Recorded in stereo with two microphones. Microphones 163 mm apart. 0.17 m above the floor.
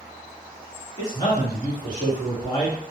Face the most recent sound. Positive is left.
turn(degrees=25)  # may be behind; listen again after turning